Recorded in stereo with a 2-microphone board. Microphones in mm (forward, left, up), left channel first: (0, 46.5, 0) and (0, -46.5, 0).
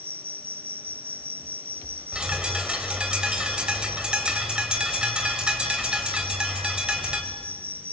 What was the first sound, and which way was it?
An insect, 25° right (ahead or behind).